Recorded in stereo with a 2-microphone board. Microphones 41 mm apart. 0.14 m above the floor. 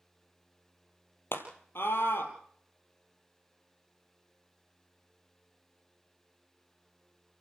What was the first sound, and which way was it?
A scream, 65° left (ahead or behind).